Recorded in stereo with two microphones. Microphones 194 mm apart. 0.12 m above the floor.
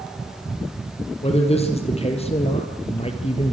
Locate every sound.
1.2 s a man speaking: 30° left (ahead or behind), 4.5 m